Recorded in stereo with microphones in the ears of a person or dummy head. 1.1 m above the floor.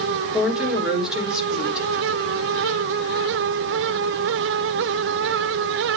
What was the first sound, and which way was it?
A woman speaking, centre (ahead or behind).